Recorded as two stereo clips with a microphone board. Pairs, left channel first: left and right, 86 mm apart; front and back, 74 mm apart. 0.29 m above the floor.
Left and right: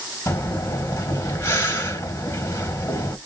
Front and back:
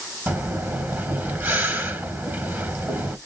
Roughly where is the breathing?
Behind left.